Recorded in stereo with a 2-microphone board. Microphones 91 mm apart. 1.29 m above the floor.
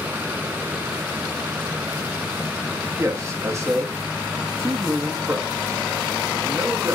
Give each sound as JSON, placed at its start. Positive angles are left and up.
{"t": 3.0, "sound": "a man speaking", "side_deg": -35, "distance_m": 0.6}